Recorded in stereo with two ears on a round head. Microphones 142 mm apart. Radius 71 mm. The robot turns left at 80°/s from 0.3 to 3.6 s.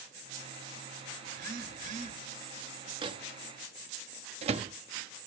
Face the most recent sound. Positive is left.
turn(degrees=-40)  # may be behind; listen again after turning